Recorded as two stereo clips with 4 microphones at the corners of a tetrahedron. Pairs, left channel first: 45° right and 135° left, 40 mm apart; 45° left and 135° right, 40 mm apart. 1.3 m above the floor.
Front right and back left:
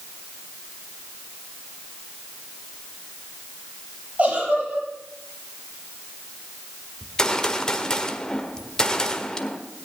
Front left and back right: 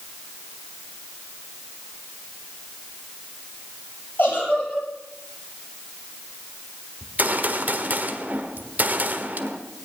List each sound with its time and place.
4.2 s a giggle: 80° left, 7 m
7.0 s a gunshot: 115° right, 1.4 m